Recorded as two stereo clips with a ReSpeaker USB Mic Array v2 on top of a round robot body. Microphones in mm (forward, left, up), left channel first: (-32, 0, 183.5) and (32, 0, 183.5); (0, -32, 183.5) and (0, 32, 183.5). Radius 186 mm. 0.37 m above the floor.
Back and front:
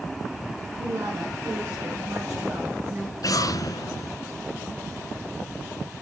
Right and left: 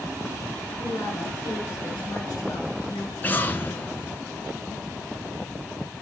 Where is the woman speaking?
35° right, 6 m; by 3.1 s 45° right, 5 m.